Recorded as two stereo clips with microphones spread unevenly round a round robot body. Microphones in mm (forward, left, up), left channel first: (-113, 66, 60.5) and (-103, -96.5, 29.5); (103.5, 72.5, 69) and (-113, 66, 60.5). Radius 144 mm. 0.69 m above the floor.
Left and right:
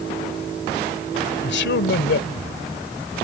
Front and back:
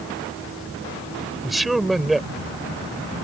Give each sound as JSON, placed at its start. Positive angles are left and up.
{"t": 1.4, "sound": "a man speaking", "azimuth_deg": 90}